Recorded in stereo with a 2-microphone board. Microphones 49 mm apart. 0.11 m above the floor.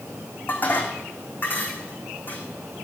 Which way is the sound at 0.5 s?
35° left (ahead or behind).